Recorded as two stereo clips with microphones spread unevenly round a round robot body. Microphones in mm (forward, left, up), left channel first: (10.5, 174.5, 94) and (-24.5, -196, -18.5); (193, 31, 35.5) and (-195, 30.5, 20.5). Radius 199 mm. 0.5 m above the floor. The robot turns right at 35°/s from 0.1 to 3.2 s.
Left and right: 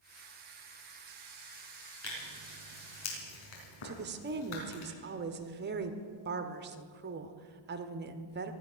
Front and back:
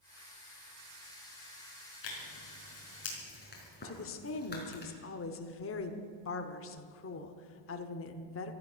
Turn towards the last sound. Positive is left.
turn(degrees=-55)